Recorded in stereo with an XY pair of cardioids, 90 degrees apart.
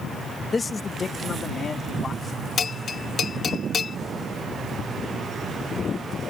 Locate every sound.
0.5 s a man speaking: 35° left; by 2.5 s 45° left
2.6 s a bell: 55° left